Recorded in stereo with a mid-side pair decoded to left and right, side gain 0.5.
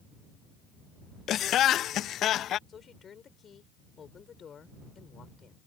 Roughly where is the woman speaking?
Ahead left.